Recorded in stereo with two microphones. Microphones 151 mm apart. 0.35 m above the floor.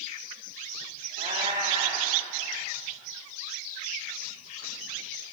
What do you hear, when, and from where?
1.2 s a cat meowing: 50° right (ahead or behind), 6.5 m